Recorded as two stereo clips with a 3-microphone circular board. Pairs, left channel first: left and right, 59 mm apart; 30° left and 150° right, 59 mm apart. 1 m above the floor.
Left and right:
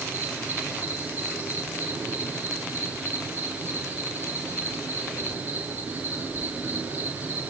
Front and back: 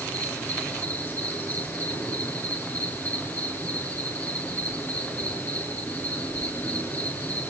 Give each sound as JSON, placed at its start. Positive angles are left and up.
{"t": 0.0, "sound": "an insect", "azimuth_deg": -20, "distance_m": 8.5}